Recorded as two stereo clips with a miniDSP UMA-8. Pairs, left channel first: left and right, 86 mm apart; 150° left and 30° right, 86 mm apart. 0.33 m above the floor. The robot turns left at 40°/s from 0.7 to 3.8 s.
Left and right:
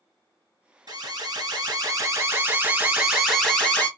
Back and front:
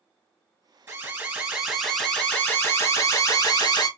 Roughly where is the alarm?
Right.